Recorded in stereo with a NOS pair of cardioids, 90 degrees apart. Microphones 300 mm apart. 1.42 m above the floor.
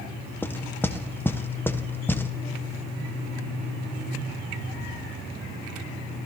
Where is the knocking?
10° left, 0.6 m.